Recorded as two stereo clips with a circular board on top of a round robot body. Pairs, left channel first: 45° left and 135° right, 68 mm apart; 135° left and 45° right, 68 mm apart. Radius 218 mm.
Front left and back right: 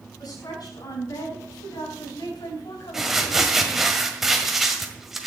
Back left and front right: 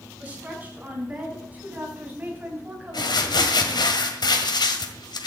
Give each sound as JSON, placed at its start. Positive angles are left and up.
{"t": 0.2, "sound": "a woman speaking", "azimuth_deg": 20, "distance_m": 7.0}
{"t": 2.9, "sound": "crumpling", "azimuth_deg": 140, "distance_m": 1.8}